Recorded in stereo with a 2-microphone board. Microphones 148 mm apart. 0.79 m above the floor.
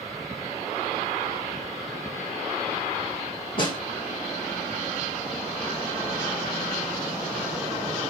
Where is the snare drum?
35° left (ahead or behind), 1.3 m.